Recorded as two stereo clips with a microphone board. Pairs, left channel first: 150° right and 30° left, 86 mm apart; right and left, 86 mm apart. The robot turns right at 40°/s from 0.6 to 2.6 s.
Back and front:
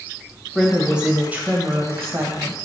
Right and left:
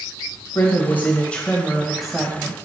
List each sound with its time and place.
0.6 s a woman speaking: 55° right, 1.3 m; by 2.5 s 25° left, 1.3 m